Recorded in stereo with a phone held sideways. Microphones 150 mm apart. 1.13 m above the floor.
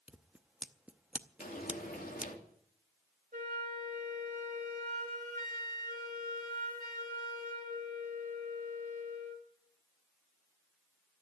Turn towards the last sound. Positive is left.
turn(degrees=-65)  # may be behind; listen again after turning